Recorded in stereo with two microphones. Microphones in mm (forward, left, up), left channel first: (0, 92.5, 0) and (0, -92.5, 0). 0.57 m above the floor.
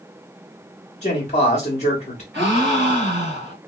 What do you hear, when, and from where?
1.0 s a man speaking: 40° left (ahead or behind), 1.1 m
2.3 s a gasp: 75° right (ahead or behind), 1.9 m